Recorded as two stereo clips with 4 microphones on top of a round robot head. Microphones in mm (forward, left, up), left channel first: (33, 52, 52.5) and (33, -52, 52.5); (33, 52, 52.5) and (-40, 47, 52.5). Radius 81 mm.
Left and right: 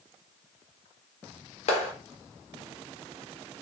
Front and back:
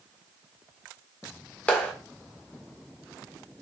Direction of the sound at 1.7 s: 75° left.